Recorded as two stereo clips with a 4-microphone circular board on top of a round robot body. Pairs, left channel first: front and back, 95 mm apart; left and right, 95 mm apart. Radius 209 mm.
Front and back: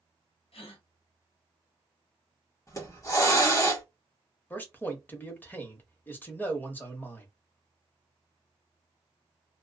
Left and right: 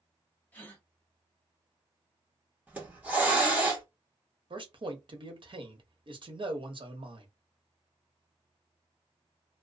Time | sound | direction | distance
0.5 | a gasp | 15° left | 0.9 m
2.7 | a hiss | 25° right | 1.4 m
4.5 | a man speaking | 65° right | 1.1 m